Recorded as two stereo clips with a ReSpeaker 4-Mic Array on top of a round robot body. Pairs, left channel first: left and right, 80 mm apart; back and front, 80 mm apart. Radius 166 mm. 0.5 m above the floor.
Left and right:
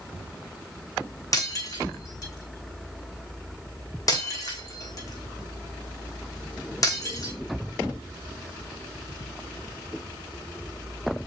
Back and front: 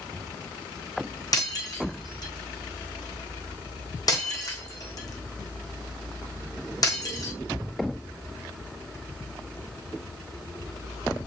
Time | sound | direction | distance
1.3 | breaking glass | 135° left | 4 m